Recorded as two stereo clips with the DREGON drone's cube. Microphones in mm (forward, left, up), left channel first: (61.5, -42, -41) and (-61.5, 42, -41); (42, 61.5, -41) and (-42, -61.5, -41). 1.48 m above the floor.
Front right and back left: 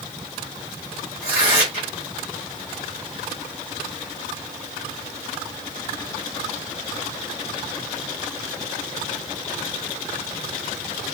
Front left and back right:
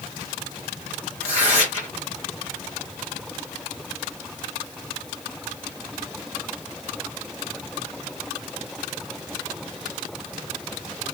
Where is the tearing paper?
80° right, 2 m.